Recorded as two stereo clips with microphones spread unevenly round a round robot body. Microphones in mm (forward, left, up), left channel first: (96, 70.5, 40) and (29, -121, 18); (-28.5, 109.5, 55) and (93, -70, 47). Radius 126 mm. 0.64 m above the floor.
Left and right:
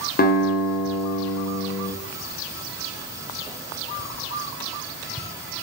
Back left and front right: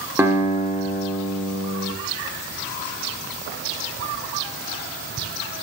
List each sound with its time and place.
0.2 s a guitar: 25° left, 0.8 m